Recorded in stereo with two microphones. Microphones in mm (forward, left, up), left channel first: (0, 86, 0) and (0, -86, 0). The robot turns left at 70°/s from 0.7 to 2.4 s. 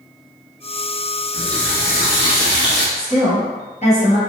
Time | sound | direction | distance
1.3 | a running tap | centre (ahead or behind) | 0.9 m
3.0 | a woman speaking | 40° left (ahead or behind) | 1.5 m